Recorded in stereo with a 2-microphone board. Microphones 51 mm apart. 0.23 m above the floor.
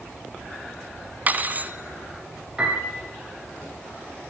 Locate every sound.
1.3 s cutlery clinking: 35° right (ahead or behind), 1.3 m
2.6 s a piano: 15° right (ahead or behind), 9 m